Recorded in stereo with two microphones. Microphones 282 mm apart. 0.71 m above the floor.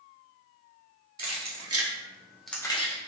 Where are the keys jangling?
70° right (ahead or behind), 0.9 m; by 3.1 s 25° left (ahead or behind), 0.9 m.